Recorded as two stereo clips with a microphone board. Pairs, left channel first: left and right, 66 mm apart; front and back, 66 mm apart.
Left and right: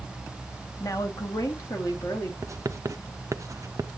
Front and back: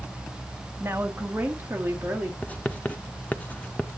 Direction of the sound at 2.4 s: 65° right.